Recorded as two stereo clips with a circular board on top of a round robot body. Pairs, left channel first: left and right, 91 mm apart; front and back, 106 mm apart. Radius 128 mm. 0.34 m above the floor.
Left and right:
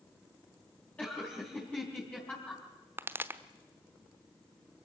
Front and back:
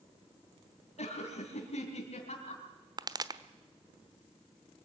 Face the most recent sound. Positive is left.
turn(degrees=-145)